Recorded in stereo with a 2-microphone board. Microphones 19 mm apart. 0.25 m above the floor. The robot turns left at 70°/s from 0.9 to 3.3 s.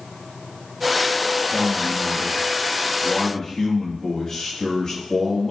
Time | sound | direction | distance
1.5 | a man speaking | 170° left | 4.5 m